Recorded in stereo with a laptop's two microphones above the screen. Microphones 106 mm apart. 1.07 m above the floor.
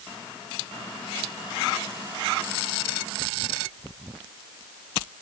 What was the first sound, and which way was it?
Only background noise.